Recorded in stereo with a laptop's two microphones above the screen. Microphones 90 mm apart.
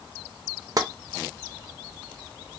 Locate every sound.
0.8 s tapping: 45° right (ahead or behind), 0.6 m